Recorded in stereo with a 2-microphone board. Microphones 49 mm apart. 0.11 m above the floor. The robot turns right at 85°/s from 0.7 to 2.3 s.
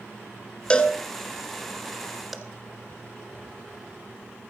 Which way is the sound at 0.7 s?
20° left (ahead or behind).